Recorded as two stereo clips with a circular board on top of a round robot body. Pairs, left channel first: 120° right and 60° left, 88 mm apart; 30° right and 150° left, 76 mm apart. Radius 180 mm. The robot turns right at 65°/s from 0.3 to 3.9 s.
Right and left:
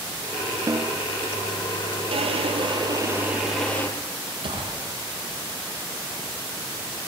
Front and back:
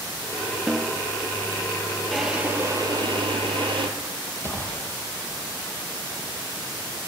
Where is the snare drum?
65° left, 1.2 m; by 1.0 s 90° left, 1.2 m.